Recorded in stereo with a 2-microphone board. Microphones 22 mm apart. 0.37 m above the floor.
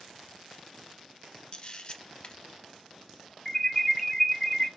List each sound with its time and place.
1.5 s a camera shutter: 40° left (ahead or behind), 0.6 m
3.5 s an alarm: 20° left (ahead or behind), 0.6 m